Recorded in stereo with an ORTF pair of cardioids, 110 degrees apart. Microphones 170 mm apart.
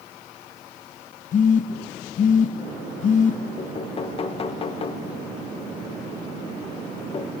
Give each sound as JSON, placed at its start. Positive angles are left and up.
{"t": 1.3, "sound": "a phone buzzing", "azimuth_deg": 50, "distance_m": 1.1}
{"t": 3.6, "sound": "knocking", "azimuth_deg": 35, "distance_m": 0.9}